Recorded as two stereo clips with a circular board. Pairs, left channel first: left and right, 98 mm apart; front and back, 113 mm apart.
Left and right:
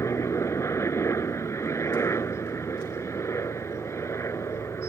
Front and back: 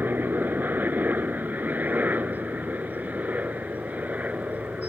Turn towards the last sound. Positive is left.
turn(degrees=115)